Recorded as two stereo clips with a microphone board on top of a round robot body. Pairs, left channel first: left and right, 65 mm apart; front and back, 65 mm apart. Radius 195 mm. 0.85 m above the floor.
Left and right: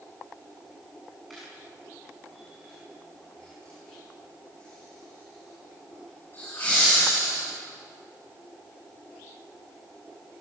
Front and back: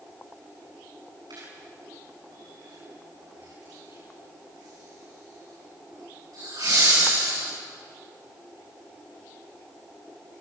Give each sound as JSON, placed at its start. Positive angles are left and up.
{"t": 1.3, "sound": "laughter", "azimuth_deg": 175, "distance_m": 8.0}